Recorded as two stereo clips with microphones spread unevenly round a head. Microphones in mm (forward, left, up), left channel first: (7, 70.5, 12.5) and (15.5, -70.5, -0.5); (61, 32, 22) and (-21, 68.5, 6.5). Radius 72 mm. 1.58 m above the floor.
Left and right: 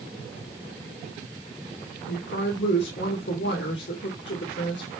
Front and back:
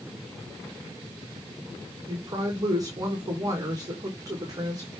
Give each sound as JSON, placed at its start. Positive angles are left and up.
{"t": 2.1, "sound": "a woman speaking", "azimuth_deg": 105, "distance_m": 2.0}